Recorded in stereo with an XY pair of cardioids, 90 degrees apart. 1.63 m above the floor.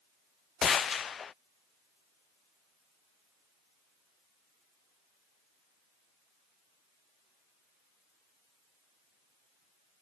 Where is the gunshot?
50° left.